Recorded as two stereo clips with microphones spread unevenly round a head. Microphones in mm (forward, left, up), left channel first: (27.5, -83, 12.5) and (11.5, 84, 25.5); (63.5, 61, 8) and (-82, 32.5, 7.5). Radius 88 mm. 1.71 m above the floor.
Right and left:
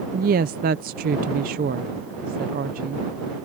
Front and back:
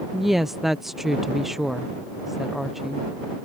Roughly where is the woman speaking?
Left.